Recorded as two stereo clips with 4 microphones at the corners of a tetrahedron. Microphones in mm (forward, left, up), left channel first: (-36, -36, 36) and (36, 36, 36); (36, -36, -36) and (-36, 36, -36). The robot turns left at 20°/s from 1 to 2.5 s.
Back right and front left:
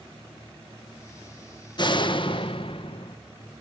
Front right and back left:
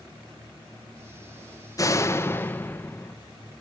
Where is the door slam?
100° right, 1.1 m; by 3.2 s 115° right, 1.1 m.